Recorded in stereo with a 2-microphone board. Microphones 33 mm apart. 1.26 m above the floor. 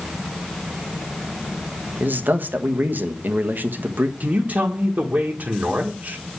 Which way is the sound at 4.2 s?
55° right (ahead or behind).